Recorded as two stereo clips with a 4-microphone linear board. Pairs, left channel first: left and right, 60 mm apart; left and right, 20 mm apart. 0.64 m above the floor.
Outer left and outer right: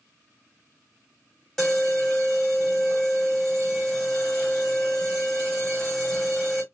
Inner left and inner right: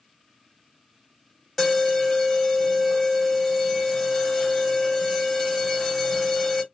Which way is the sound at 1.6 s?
10° left (ahead or behind).